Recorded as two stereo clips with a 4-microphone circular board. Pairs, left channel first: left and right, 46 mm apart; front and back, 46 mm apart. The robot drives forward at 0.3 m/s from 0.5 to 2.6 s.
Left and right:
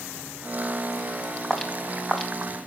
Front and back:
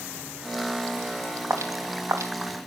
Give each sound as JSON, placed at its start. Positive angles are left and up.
{"t": 1.5, "sound": "footsteps", "azimuth_deg": 180, "distance_m": 3.5}